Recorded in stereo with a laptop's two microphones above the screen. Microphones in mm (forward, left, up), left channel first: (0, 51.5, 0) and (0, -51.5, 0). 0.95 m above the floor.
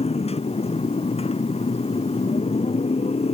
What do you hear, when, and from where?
0.0 s a motorcycle: 85° left